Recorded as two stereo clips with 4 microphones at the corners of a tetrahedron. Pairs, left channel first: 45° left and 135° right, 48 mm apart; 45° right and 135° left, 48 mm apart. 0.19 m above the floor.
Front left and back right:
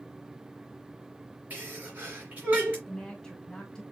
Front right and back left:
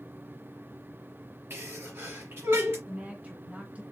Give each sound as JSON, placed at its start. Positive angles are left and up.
{"t": 1.5, "sound": "a sneeze", "azimuth_deg": 170, "distance_m": 3.5}
{"t": 2.9, "sound": "a woman speaking", "azimuth_deg": 105, "distance_m": 1.7}